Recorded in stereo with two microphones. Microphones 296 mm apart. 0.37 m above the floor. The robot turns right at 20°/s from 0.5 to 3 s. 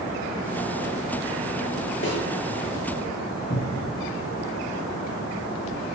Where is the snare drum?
40° left (ahead or behind), 7 m.